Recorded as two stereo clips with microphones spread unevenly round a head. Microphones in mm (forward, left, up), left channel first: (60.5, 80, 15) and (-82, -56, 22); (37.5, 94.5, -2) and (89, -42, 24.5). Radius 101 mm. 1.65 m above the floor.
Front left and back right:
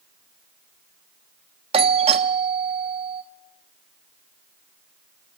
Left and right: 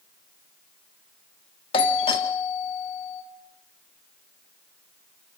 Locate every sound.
1.7 s a doorbell: 165° left, 1.2 m